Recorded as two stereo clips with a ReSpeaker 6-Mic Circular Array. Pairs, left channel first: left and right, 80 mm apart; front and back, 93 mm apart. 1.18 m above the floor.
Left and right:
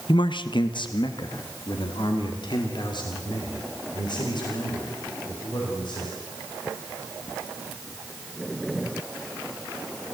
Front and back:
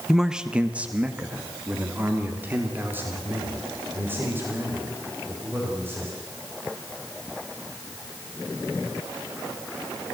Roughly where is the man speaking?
Left.